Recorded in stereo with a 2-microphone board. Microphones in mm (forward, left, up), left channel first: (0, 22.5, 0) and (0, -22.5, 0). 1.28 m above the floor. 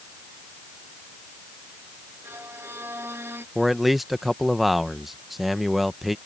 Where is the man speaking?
5° right (ahead or behind).